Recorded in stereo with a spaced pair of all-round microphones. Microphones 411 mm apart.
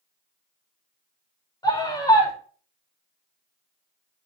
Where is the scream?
10° left (ahead or behind), 5 m.